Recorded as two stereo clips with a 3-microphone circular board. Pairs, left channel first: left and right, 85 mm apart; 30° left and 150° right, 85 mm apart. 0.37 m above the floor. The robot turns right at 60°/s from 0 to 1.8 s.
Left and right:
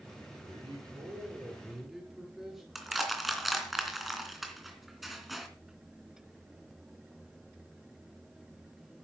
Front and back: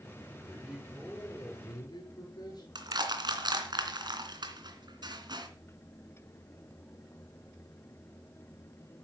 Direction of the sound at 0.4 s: 85° right.